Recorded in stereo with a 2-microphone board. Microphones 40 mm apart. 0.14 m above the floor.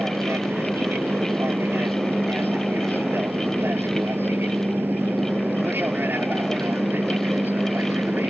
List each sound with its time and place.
0.0 s an aircraft: 65° right (ahead or behind); by 8.3 s 55° right (ahead or behind)